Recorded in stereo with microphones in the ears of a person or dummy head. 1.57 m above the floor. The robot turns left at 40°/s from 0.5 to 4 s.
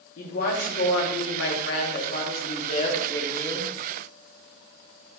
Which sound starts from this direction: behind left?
A woman speaking, at 0.2 s.